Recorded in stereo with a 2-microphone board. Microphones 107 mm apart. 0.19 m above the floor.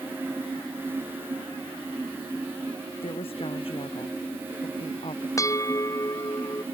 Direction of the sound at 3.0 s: 55° left (ahead or behind).